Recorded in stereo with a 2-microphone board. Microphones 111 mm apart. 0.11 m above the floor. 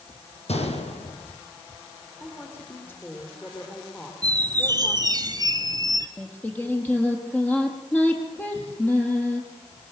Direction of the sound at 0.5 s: 70° left (ahead or behind).